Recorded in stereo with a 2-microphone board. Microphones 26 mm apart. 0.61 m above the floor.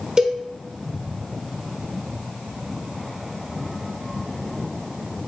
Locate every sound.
0.2 s a cowbell: 30° right (ahead or behind), 1.0 m